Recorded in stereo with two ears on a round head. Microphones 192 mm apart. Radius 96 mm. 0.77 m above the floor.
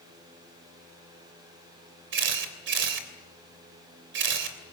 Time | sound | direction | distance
2.1 | a camera shutter | 55° right (ahead or behind) | 3 m